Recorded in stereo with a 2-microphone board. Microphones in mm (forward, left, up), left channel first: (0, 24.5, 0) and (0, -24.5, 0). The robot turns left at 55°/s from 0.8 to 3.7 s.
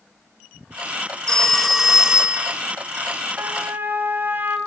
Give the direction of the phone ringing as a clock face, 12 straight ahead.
11 o'clock.